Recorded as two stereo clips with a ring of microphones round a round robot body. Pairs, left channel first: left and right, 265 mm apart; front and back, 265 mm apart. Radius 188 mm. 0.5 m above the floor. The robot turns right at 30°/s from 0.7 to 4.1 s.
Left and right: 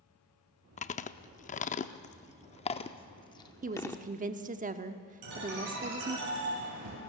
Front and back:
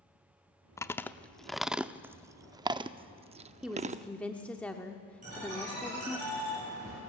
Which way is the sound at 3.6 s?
95° right.